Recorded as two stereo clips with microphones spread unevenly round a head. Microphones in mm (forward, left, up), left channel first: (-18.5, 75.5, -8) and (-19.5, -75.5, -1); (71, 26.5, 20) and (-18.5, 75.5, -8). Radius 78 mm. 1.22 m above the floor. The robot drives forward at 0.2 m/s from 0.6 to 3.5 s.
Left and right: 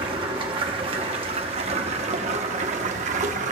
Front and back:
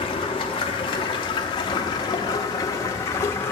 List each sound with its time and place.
0.0 s running water: 40° right, 1.0 m; by 3.5 s 80° right, 0.7 m